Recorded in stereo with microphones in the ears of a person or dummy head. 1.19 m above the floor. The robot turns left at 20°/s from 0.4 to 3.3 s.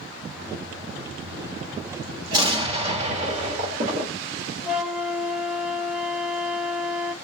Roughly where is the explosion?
Right.